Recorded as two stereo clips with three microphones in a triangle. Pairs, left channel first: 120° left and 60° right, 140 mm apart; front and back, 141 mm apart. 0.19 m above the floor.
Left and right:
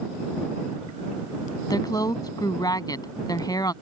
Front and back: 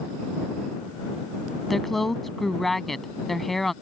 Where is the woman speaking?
90° left.